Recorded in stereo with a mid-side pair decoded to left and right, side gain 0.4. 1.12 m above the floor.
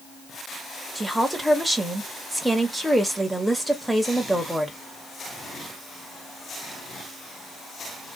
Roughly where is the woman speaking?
Ahead.